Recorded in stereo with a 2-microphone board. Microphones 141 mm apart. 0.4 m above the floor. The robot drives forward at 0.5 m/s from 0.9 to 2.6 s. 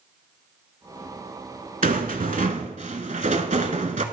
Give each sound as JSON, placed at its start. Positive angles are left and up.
{"t": 1.8, "sound": "a rattle", "side_deg": -70, "distance_m": 0.7}